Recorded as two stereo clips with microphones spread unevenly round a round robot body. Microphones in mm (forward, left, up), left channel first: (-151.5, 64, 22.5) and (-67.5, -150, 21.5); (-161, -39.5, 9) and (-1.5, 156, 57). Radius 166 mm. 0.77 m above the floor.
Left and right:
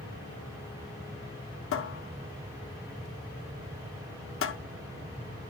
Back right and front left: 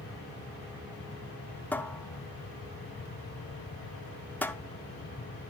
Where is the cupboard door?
145° left, 0.6 m.